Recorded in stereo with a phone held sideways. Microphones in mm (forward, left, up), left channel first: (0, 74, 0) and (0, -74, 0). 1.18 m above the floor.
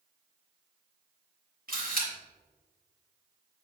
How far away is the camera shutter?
About 2.5 m.